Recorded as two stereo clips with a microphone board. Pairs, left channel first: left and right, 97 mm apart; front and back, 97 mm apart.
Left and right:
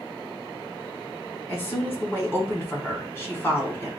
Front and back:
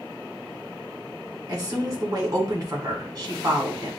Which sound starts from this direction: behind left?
A woman speaking, at 1.5 s.